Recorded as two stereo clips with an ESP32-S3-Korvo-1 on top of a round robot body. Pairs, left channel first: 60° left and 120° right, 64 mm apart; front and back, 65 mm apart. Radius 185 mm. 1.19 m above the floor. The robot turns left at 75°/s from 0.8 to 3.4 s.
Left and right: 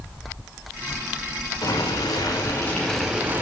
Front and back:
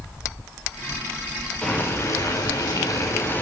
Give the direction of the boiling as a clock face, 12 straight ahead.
10 o'clock.